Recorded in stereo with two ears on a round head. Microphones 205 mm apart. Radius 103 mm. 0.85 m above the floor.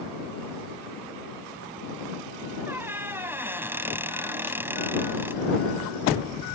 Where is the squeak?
10° right (ahead or behind).